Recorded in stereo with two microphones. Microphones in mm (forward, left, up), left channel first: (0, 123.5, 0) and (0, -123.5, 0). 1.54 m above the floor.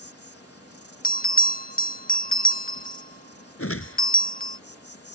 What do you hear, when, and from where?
0.0 s an insect: 80° left
1.0 s a bell: 35° left (ahead or behind)
3.6 s a whoosh: 70° left (ahead or behind)